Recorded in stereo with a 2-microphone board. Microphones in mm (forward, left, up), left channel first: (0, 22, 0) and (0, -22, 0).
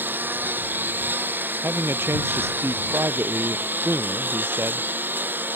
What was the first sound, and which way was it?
A lawn mower, 50° right (ahead or behind).